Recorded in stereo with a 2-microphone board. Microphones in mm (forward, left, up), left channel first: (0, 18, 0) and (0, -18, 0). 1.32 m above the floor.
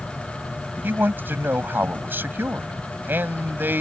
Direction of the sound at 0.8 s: 80° right.